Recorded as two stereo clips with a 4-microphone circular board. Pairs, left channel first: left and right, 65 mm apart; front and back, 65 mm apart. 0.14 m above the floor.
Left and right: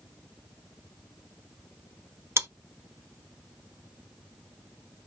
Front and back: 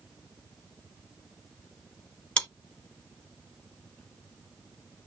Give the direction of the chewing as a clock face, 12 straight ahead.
2 o'clock.